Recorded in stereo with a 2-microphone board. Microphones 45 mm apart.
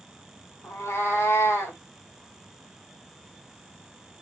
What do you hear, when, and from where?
0.6 s a cat meowing: 75° left (ahead or behind), 3.5 m